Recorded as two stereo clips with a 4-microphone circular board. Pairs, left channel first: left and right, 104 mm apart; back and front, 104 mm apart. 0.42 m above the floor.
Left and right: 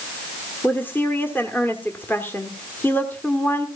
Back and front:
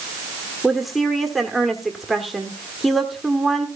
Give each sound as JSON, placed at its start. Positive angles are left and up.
{"t": 0.6, "sound": "a woman speaking", "azimuth_deg": 85, "distance_m": 1.3}